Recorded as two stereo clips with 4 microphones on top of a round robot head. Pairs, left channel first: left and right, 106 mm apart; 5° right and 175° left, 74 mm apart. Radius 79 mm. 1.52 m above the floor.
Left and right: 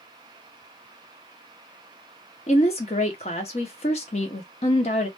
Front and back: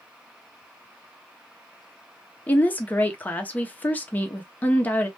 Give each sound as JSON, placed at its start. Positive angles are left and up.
{"t": 2.5, "sound": "a woman speaking", "azimuth_deg": 55, "distance_m": 0.5}